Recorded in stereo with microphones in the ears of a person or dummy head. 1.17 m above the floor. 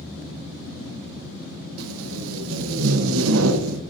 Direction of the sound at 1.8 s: 70° right (ahead or behind).